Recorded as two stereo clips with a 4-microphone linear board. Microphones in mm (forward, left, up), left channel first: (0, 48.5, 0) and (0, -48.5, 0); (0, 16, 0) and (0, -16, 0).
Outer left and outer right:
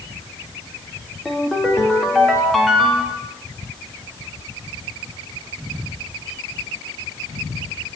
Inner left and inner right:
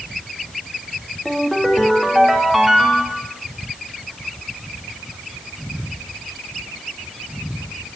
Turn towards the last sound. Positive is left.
turn(degrees=5)  # may be behind; listen again after turning